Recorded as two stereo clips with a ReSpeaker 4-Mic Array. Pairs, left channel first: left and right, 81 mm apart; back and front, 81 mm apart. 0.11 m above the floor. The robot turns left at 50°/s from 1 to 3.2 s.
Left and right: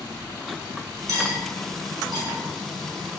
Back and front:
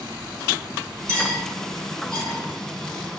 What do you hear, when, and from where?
1.1 s cutlery clinking: 50° right, 1.3 m; by 2.4 s 110° right, 1.3 m